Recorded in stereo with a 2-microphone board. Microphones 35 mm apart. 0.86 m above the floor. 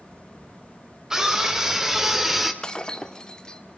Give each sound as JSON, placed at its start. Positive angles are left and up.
{"t": 1.1, "sound": "a scream", "side_deg": -15, "distance_m": 3.5}
{"t": 2.6, "sound": "breaking glass", "side_deg": 20, "distance_m": 1.5}